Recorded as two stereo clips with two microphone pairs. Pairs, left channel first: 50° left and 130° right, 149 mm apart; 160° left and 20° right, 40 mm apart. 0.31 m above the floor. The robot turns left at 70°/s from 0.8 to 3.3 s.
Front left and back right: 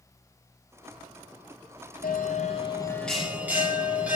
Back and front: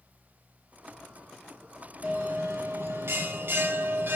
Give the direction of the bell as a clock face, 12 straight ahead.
11 o'clock.